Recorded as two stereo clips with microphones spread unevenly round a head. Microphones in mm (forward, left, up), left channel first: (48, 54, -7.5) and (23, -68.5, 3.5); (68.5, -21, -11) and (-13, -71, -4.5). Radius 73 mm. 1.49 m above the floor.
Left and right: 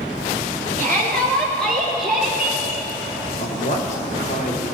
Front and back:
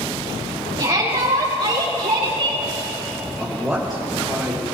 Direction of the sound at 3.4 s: 125° left.